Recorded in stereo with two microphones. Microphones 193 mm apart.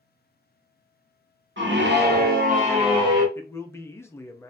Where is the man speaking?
15° left (ahead or behind), 0.6 m.